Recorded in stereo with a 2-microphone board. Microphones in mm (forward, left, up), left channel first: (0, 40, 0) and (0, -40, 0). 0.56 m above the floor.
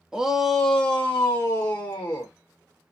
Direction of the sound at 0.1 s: 10° right (ahead or behind).